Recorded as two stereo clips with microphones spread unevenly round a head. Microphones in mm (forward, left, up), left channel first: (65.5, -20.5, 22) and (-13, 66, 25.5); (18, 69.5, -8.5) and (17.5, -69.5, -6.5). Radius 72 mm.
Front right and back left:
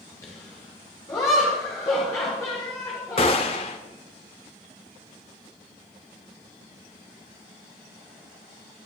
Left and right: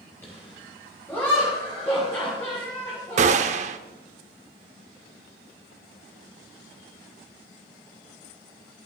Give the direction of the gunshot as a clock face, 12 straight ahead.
3 o'clock.